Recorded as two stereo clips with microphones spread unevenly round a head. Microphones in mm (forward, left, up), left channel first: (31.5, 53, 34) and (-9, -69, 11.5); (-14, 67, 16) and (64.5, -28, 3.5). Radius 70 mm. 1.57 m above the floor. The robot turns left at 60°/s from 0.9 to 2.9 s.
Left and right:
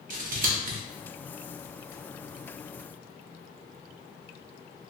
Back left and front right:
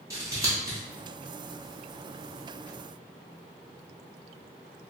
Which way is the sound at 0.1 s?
120° right.